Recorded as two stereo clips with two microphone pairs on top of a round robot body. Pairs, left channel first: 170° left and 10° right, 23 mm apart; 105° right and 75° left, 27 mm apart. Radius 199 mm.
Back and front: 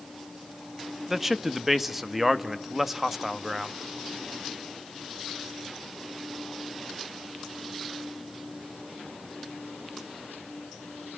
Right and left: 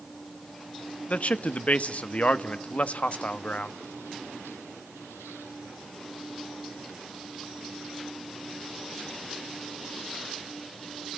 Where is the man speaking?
90° right, 1.7 m.